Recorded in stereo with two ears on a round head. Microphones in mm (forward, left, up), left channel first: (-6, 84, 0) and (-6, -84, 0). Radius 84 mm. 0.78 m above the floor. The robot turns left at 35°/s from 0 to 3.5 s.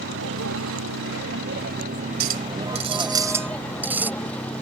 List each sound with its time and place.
0.0 s a vehicle: 65° right; by 4.6 s 175° left
2.2 s a clink: 125° right; by 4.1 s 170° right